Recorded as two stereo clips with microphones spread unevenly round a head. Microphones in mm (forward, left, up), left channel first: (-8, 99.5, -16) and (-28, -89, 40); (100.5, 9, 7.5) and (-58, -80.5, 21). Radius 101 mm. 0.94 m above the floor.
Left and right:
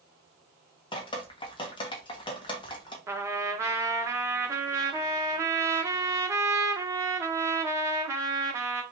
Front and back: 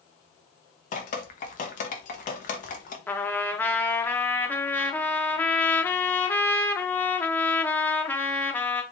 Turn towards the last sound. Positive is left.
turn(degrees=-50)